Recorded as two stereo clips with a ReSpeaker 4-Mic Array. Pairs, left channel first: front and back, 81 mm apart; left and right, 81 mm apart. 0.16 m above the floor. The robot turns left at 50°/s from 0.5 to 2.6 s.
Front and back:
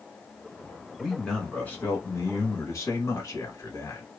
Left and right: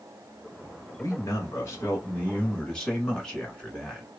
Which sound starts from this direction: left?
A man speaking, at 1.0 s.